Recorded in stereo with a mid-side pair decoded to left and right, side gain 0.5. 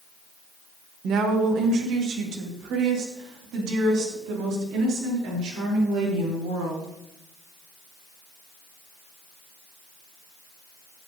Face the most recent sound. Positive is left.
turn(degrees=-80)